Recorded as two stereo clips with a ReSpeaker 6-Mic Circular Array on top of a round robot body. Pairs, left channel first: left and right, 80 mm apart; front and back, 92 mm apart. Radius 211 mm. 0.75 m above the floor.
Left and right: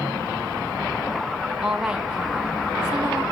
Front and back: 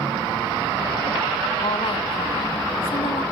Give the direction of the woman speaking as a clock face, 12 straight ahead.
12 o'clock.